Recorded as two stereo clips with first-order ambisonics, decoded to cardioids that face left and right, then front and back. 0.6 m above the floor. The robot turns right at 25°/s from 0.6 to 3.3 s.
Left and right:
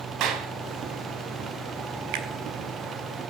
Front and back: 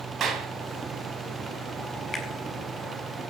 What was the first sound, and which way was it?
A clap, 125° right.